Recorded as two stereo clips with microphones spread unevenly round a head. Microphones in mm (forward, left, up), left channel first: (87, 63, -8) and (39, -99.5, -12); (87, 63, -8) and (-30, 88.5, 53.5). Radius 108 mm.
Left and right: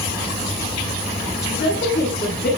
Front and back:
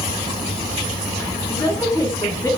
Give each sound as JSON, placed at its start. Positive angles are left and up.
{"t": 1.5, "sound": "a woman speaking", "azimuth_deg": 50, "distance_m": 9.5}